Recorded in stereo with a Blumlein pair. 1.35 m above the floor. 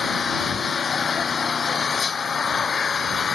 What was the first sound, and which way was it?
An engine running, 20° left.